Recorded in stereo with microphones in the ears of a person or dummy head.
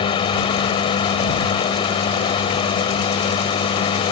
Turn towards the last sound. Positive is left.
turn(degrees=30)  # may be behind; listen again after turning